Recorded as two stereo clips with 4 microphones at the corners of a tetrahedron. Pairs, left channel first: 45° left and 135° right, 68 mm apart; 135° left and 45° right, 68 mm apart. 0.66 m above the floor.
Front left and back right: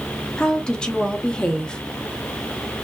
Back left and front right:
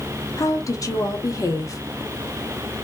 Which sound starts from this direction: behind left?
A woman speaking, at 0.4 s.